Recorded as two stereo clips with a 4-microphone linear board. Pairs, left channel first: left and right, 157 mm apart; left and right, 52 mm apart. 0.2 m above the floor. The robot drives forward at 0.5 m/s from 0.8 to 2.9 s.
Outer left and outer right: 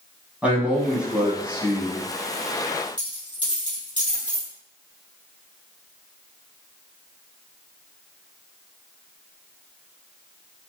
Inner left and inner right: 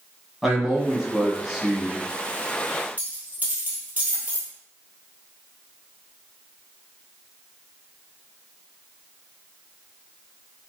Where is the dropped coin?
30° right (ahead or behind), 1.9 m.